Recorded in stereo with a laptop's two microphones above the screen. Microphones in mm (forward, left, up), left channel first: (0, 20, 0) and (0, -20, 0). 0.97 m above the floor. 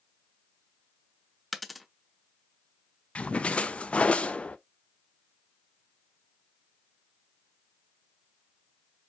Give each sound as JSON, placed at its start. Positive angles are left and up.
{"t": 1.5, "sound": "a dropped coin", "side_deg": 0, "distance_m": 0.6}
{"t": 3.1, "sound": "a splash", "side_deg": 30, "distance_m": 0.5}